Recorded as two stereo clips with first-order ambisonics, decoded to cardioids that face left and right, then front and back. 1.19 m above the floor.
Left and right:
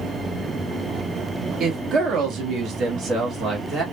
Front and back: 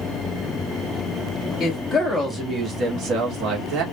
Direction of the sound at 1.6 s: 55° right.